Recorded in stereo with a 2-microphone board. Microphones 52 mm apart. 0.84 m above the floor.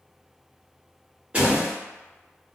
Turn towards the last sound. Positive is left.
turn(degrees=-25)  # may be behind; listen again after turning